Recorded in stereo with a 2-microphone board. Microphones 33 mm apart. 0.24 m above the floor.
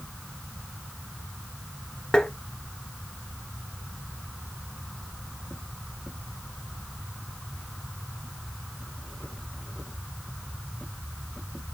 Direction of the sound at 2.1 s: 25° left (ahead or behind).